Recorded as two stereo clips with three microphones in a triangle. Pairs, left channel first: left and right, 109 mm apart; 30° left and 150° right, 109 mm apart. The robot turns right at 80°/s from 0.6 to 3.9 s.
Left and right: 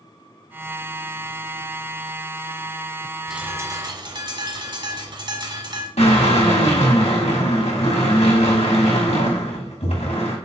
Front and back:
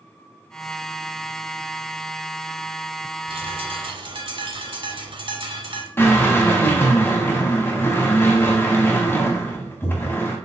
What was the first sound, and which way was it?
A bird, 175° right.